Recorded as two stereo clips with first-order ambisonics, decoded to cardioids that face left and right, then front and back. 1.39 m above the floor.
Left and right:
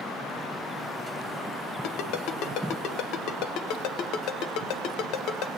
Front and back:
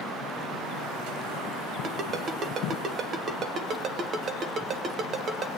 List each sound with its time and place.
1.8 s a ringtone: 120° left, 0.8 m